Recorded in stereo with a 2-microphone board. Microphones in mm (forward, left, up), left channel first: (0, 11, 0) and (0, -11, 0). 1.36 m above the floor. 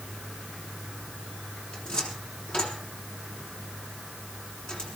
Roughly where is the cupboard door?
Left.